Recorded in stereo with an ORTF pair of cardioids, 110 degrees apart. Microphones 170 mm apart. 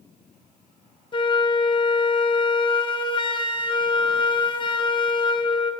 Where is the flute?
30° left, 0.6 m.